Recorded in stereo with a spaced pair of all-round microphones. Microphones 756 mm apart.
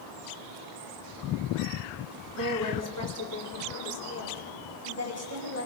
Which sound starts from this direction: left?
A woman speaking, at 2.4 s.